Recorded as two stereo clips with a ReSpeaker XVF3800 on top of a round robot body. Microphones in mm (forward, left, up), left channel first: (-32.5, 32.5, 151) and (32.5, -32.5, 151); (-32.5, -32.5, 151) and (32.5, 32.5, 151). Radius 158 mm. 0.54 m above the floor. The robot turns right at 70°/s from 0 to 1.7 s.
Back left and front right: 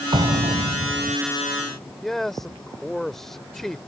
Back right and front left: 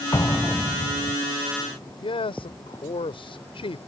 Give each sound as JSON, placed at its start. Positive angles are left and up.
{"t": 0.1, "sound": "an explosion", "azimuth_deg": -80}
{"t": 2.0, "sound": "a man speaking", "azimuth_deg": -140}